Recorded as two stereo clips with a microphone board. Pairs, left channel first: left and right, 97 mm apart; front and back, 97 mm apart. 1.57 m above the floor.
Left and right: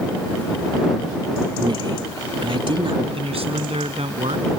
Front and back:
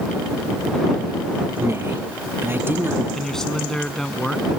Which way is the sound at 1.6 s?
120° right.